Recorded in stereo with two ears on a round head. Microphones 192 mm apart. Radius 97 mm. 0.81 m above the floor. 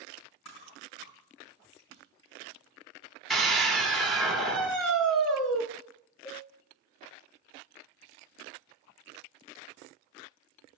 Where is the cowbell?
25° left (ahead or behind), 2.5 m.